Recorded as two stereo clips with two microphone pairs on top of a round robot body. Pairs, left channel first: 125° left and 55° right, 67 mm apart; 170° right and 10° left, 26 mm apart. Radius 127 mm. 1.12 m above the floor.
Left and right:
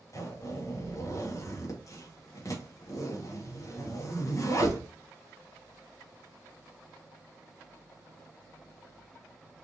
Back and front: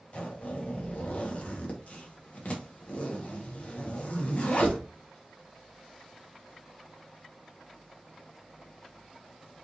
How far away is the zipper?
About 1.8 m.